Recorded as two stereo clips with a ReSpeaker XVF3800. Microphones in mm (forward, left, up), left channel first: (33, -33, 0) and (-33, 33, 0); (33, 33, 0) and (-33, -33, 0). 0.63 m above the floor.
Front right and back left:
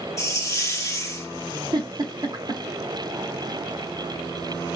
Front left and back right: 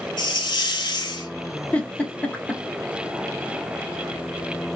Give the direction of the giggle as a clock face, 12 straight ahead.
8 o'clock.